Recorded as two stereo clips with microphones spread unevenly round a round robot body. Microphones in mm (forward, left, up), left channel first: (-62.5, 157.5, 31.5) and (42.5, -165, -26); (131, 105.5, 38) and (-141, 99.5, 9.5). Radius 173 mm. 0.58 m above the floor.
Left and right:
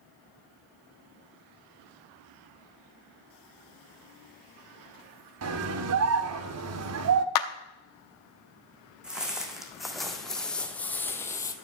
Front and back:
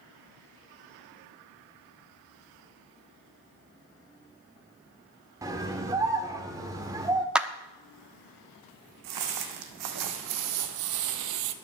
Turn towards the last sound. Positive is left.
turn(degrees=180)